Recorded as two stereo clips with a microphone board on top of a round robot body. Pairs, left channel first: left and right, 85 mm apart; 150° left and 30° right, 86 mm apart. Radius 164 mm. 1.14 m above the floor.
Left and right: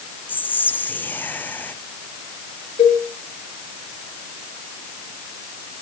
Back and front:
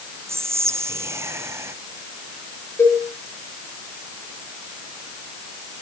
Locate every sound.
0.3 s whispering: 25° left, 0.8 m
2.8 s a cowbell: 85° left, 3.5 m